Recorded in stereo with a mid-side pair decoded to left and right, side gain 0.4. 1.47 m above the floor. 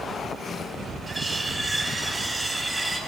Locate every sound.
1.1 s cutlery clinking: 10° right, 5 m